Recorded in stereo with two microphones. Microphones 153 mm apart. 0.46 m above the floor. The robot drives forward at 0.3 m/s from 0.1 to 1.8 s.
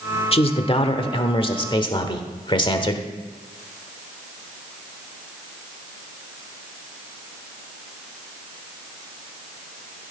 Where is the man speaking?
40° left (ahead or behind), 1.1 m; by 3.1 s 30° left (ahead or behind), 1.3 m.